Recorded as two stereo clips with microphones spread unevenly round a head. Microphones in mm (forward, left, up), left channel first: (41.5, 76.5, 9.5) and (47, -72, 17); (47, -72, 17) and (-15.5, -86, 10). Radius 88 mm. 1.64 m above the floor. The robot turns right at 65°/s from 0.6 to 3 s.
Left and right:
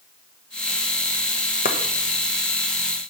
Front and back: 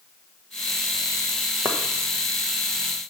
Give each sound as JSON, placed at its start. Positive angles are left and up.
{"t": 1.6, "sound": "chopping", "azimuth_deg": 120, "distance_m": 1.1}